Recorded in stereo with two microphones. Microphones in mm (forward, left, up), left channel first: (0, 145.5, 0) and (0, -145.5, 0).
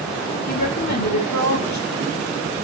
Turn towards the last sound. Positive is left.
turn(degrees=70)  # may be behind; listen again after turning